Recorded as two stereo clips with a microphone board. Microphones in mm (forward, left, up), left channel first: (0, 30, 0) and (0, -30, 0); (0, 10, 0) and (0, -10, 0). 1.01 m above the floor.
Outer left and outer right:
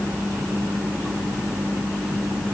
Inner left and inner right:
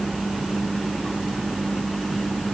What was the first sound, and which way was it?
Only background noise.